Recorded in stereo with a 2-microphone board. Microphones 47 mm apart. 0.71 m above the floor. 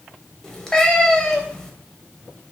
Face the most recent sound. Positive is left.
turn(degrees=10)  # may be behind; listen again after turning